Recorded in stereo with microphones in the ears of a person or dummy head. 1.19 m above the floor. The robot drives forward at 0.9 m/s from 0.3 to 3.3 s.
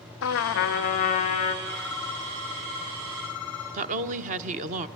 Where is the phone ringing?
20° left (ahead or behind), 1.8 m; by 3.8 s 10° left (ahead or behind), 3.5 m.